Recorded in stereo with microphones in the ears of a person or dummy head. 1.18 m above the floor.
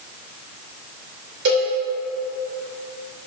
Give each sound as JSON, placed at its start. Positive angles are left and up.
{"t": 1.4, "sound": "a cowbell", "side_deg": -75, "distance_m": 2.5}